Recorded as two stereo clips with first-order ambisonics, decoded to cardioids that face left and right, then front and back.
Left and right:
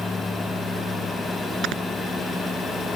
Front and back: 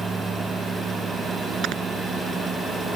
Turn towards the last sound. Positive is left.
turn(degrees=-135)